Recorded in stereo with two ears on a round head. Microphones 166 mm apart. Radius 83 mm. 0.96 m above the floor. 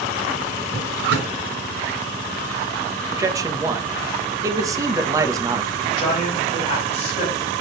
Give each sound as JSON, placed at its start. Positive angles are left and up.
{"t": 0.7, "sound": "a drawer", "side_deg": -75, "distance_m": 2.5}
{"t": 3.1, "sound": "a man speaking", "side_deg": -20, "distance_m": 1.1}
{"t": 5.8, "sound": "a man speaking", "side_deg": 40, "distance_m": 4.5}